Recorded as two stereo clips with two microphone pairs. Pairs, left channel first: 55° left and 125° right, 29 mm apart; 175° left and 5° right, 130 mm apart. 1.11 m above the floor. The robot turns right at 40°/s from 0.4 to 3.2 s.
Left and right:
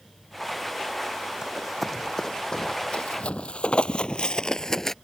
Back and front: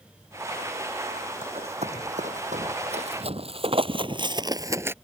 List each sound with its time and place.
1.4 s running footsteps: 50° right; by 5.0 s 30° left